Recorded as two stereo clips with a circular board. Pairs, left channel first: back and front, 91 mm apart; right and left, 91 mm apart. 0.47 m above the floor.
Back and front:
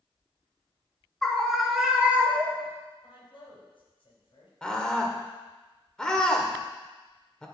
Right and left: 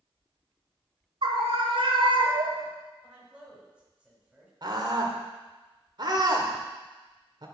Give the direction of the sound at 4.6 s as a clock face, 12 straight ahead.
9 o'clock.